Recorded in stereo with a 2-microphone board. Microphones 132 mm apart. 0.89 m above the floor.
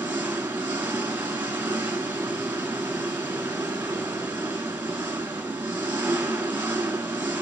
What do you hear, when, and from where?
0.0 s an engine running: 15° right (ahead or behind), 1.7 m